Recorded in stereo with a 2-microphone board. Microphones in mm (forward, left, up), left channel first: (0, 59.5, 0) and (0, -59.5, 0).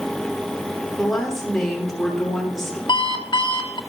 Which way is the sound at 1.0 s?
Centre (ahead or behind).